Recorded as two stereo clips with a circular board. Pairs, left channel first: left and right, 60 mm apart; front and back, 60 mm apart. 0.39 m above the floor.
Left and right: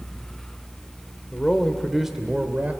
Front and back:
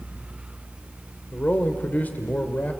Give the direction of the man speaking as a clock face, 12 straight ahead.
11 o'clock.